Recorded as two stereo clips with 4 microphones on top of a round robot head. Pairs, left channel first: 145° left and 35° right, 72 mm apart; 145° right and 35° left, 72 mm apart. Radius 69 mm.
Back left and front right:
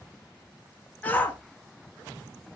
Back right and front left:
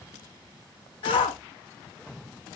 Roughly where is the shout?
Behind right.